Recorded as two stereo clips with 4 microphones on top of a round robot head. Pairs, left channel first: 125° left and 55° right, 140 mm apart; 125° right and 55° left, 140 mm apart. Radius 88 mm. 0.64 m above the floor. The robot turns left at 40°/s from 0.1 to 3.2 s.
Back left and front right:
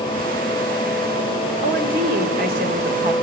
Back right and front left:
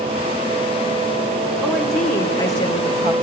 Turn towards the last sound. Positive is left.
turn(degrees=-90)